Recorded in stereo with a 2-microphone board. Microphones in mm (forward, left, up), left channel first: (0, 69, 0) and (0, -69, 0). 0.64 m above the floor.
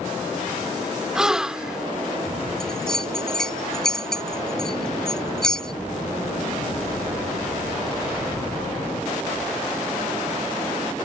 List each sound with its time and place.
1.1 s a gasp: 5° right (ahead or behind)
2.6 s a bell: 5° left (ahead or behind)